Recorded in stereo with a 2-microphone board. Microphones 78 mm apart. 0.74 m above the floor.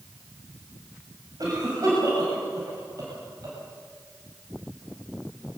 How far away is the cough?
About 5.5 m.